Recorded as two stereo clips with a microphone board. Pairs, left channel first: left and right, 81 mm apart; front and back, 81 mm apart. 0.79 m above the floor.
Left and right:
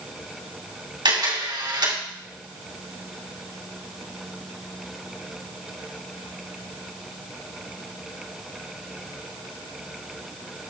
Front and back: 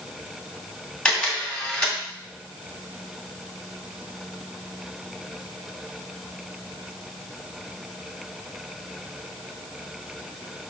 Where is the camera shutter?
80° right, 2.5 m.